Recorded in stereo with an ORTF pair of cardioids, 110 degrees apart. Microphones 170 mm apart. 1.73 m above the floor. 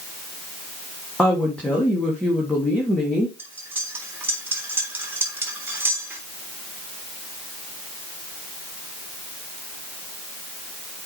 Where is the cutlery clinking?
10° right, 3 m.